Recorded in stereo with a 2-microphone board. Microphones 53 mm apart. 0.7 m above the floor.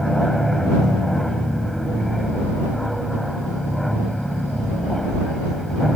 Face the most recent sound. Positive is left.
turn(degrees=5)  # may be behind; listen again after turning